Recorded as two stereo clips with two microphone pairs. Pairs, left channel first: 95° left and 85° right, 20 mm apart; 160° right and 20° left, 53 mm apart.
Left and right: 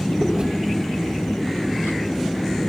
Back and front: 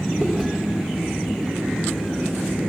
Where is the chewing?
50° right, 2.5 m.